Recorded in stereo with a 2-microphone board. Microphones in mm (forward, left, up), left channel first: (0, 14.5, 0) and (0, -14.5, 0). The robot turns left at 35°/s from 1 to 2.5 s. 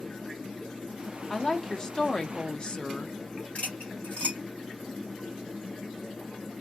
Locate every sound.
1.3 s a woman speaking: 150° left, 0.7 m; by 3.2 s 105° left, 0.7 m
3.5 s cutlery clinking: 65° left (ahead or behind), 1.5 m